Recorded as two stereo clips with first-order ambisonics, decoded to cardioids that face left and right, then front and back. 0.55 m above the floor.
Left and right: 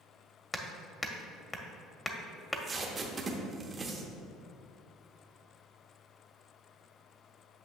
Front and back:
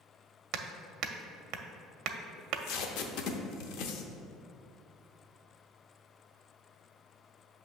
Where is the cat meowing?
No cat meowing in this recording.